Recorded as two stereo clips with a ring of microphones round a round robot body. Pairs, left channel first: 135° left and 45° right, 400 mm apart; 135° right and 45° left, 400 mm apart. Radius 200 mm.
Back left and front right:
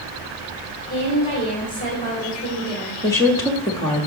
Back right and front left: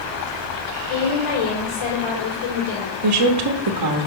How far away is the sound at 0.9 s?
About 3.5 m.